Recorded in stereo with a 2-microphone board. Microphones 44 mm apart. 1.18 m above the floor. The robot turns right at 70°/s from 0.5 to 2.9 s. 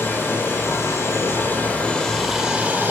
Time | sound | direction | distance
0.0 | running water | 55° left | 4.5 m